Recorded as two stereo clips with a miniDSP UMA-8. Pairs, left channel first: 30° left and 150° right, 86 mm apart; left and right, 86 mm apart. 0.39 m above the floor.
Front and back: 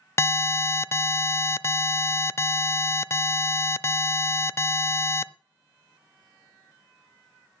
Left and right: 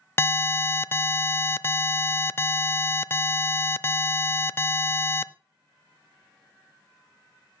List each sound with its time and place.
0.2 s an alarm: 55° left, 0.5 m